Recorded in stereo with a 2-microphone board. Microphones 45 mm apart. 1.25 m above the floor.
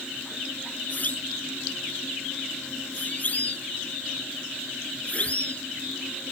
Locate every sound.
0.9 s a siren: 40° left (ahead or behind); by 5.6 s 30° left (ahead or behind)